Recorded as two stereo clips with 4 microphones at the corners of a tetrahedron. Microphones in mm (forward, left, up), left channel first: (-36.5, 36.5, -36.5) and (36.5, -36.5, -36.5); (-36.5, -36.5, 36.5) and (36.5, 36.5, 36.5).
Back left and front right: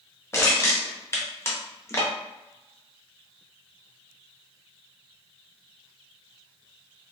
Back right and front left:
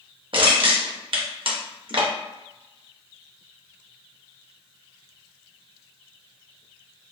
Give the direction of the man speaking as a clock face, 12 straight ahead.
No man speaking in this recording.